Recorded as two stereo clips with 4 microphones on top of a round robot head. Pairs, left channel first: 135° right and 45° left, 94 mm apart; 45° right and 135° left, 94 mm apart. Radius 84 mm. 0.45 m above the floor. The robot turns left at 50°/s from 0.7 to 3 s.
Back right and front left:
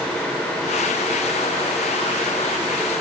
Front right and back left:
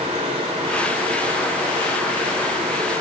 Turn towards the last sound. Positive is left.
No sound to turn to.